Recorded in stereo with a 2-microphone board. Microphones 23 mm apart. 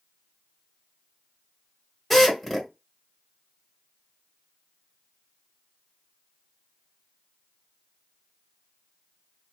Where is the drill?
5° left (ahead or behind), 1.6 m.